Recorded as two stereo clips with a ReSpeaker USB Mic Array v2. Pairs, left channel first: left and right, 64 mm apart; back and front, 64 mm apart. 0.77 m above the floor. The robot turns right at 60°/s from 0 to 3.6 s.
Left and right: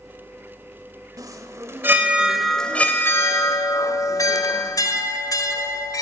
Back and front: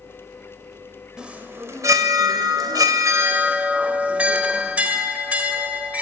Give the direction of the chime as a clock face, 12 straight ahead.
3 o'clock.